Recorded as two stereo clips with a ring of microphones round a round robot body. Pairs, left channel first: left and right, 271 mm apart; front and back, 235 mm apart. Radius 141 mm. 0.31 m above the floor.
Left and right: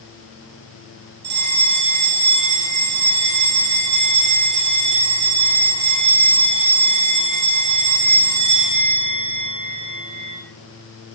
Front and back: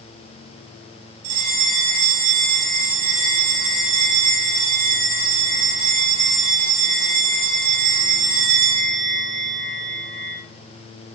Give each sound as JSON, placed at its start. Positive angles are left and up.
{"t": 1.2, "sound": "a bell", "azimuth_deg": -145, "distance_m": 3.0}